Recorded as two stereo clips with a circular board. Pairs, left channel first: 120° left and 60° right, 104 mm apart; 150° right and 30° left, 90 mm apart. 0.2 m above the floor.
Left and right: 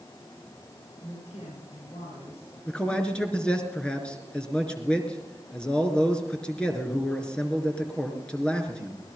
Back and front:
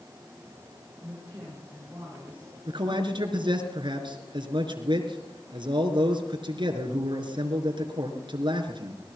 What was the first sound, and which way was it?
A woman speaking, 105° left.